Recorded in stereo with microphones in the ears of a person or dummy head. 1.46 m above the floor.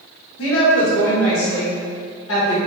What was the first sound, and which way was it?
A woman speaking, 80° left.